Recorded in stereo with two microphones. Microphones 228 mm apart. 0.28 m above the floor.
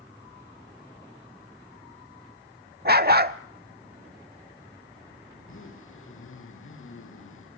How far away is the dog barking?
About 0.7 m.